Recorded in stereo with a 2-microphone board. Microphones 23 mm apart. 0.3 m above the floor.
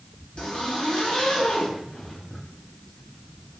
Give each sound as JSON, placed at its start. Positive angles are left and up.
{"t": 0.4, "sound": "a zipper", "side_deg": 55, "distance_m": 1.6}